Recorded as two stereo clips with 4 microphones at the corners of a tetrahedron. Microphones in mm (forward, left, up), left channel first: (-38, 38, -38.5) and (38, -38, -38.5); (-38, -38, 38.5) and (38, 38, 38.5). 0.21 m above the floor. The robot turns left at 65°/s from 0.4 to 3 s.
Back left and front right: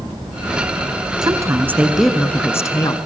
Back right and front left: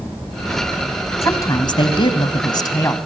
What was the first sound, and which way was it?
A woman speaking, 80° right.